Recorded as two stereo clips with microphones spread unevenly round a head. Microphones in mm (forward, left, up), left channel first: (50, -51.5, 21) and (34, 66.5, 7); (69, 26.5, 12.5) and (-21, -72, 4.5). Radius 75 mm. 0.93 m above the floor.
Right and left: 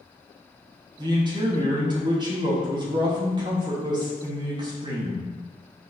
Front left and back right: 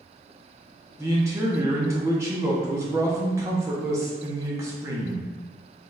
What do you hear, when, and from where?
1.0 s a man speaking: 155° left, 0.9 m